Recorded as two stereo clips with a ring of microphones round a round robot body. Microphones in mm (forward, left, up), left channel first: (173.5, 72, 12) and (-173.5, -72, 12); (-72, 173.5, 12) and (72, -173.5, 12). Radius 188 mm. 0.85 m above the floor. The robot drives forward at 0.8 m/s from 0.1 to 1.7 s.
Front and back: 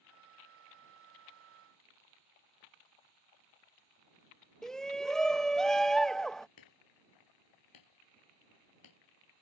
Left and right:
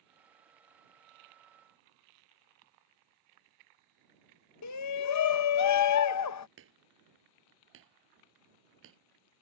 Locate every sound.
4.6 s a shout: 110° left
6.6 s hammering: 10° right